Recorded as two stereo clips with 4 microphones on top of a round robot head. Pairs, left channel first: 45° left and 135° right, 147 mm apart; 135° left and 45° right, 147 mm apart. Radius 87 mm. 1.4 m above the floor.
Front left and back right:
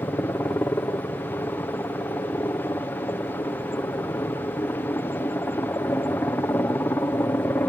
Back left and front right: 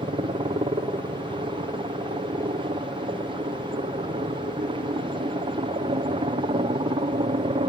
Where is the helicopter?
20° right.